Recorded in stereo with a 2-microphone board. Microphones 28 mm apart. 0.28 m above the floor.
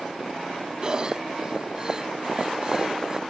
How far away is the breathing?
About 0.7 m.